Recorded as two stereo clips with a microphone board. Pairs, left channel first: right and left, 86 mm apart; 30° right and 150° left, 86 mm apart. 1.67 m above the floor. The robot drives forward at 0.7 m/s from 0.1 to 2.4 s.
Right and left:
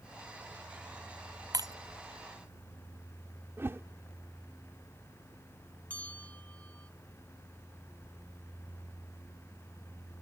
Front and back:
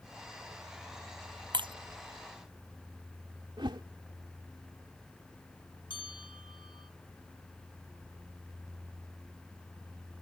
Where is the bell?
15° right.